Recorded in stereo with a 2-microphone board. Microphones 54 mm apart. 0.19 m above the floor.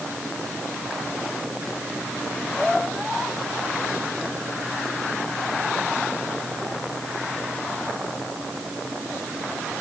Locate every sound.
Only background noise.